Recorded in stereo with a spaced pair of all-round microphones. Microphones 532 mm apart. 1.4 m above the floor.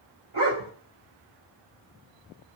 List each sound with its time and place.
0.3 s a dog barking: 60° right (ahead or behind), 2.5 m